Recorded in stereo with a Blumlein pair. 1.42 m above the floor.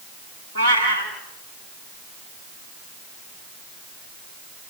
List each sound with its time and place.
0.6 s a cat meowing: 65° right, 6 m